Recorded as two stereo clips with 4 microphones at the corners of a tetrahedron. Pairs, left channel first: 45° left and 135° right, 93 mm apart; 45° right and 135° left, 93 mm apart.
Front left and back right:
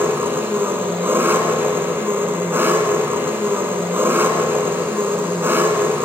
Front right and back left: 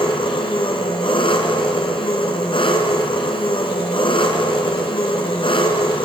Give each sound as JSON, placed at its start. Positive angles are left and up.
{"t": 0.0, "sound": "an engine running", "azimuth_deg": -70, "distance_m": 3.0}